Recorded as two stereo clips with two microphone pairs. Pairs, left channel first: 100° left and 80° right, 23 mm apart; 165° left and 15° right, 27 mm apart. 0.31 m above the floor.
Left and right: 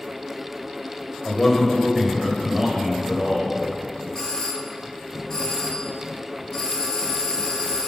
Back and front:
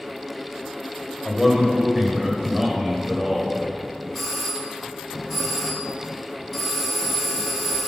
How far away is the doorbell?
About 1.4 m.